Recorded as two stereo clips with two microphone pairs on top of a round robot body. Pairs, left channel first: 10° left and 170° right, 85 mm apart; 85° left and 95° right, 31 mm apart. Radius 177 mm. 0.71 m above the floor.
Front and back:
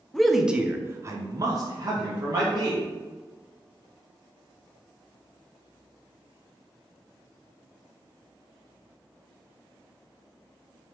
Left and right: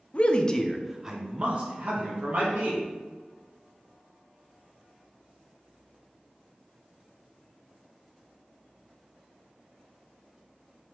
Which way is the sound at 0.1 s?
95° left.